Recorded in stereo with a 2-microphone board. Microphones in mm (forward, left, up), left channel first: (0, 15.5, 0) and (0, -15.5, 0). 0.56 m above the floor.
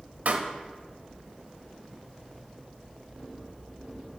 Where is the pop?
65° right (ahead or behind), 0.8 m.